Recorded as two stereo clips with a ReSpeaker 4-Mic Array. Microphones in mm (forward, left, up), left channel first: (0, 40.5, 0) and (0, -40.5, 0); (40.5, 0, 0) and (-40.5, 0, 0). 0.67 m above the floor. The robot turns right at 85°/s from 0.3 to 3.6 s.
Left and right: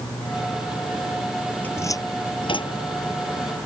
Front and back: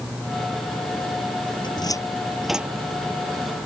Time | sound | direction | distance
1.6 | a cupboard door | 20° left | ?